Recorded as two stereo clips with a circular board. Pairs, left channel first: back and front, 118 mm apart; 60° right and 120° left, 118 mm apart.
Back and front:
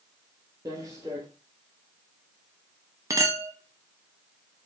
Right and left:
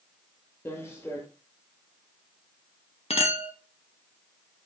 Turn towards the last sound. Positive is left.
turn(degrees=-55)